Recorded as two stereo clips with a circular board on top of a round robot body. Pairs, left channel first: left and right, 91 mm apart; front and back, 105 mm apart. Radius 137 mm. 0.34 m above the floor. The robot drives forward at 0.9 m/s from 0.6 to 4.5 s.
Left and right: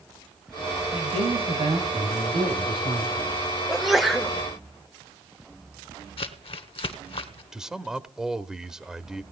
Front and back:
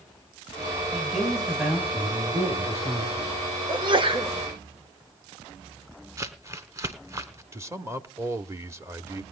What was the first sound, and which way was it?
A man speaking, 90° right.